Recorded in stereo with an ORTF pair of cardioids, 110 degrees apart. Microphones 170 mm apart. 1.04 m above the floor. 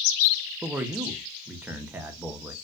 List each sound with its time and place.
0.6 s a man speaking: 10° right, 0.6 m